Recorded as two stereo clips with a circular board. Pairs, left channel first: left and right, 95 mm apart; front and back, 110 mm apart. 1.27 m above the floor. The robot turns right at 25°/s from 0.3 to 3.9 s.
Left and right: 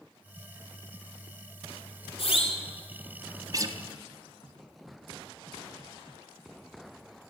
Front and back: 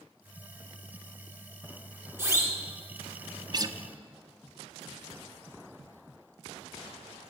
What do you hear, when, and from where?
2.2 s a siren: 110° left, 3.5 m; by 2.6 s 120° left, 3.5 m
3.5 s a guitar: 135° right, 1.0 m; by 3.8 s 130° right, 1.0 m